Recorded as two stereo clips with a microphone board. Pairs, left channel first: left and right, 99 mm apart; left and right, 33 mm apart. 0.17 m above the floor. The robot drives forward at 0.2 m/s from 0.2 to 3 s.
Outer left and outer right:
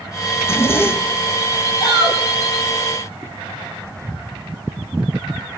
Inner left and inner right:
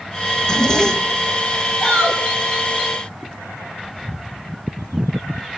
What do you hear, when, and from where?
0.4 s a zipper: 25° left (ahead or behind), 1.5 m; by 1.4 s 20° left (ahead or behind), 1.7 m
1.8 s a shout: 40° left (ahead or behind), 7 m